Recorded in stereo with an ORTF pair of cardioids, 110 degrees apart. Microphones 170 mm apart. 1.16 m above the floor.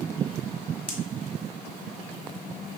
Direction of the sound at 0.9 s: 10° right.